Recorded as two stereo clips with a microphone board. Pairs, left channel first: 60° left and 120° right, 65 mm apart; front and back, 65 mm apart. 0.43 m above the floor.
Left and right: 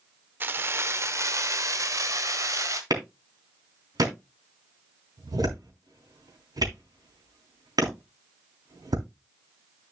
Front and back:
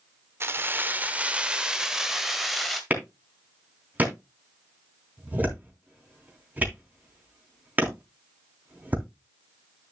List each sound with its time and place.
0.4 s keys jangling: 160° right, 0.8 m; by 2.8 s 90° right, 1.7 m
2.9 s a clap: 115° right, 3.5 m